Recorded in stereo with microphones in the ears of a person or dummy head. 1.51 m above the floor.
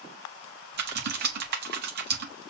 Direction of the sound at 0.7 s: 55° right (ahead or behind).